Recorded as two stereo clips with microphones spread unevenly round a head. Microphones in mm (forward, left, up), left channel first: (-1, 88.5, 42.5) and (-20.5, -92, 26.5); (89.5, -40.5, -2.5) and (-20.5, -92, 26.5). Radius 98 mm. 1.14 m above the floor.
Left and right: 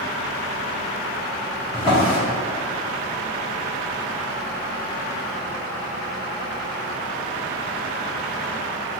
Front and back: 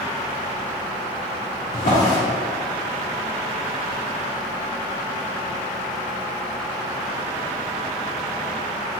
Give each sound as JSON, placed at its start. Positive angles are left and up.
{"t": 1.7, "sound": "a drawer", "azimuth_deg": 15, "distance_m": 1.4}